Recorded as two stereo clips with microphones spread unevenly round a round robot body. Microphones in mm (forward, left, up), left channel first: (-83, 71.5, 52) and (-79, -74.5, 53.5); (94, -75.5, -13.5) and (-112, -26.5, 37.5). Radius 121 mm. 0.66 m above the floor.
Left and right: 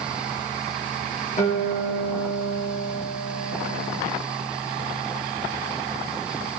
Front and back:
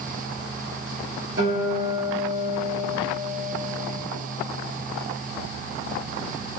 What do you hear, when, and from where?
1.4 s a guitar: 125° left, 3.5 m